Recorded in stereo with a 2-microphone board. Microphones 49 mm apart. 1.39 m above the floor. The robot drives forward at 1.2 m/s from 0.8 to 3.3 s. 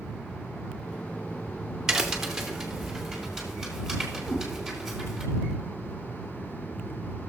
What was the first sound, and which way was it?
A crack, 10° right (ahead or behind).